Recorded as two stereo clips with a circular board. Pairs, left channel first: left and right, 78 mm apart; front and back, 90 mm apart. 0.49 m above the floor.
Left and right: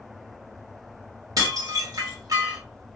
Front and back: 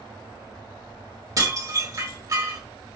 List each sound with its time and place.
1.4 s dishes clattering: 130° right, 1.2 m